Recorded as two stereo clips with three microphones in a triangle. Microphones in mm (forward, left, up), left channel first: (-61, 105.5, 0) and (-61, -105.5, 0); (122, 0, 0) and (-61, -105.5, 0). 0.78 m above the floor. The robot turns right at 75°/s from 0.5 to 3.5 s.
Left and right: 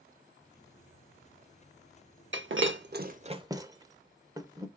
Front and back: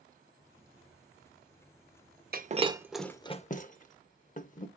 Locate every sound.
2.3 s breaking glass: 110° right, 0.7 m; by 4.7 s 20° right, 0.7 m